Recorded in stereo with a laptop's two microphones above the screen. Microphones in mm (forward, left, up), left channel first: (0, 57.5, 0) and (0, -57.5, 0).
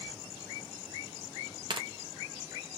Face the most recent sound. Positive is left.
turn(degrees=-45)  # may be behind; listen again after turning